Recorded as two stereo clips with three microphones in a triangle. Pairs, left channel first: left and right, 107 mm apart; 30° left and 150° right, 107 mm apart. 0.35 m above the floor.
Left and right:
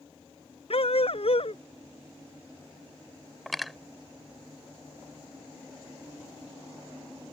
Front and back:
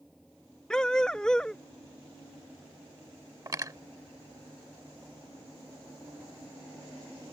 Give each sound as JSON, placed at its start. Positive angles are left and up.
{"t": 0.7, "sound": "a dog barking", "azimuth_deg": 115}
{"t": 3.5, "sound": "cutlery clinking", "azimuth_deg": 180}